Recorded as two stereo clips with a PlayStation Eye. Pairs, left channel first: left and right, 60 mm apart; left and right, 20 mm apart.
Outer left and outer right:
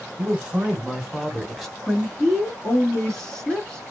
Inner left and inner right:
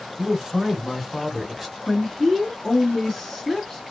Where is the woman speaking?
10° left (ahead or behind), 1.8 m.